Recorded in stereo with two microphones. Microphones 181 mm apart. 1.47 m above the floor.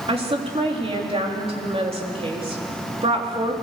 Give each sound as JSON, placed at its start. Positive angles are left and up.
{"t": 0.1, "sound": "a woman speaking", "side_deg": -35, "distance_m": 3.5}